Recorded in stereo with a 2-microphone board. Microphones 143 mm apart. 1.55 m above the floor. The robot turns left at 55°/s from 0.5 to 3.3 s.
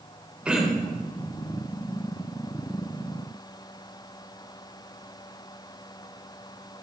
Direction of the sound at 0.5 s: 5° right (ahead or behind).